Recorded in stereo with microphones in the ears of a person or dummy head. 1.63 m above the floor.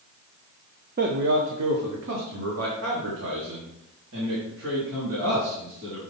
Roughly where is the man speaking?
Right.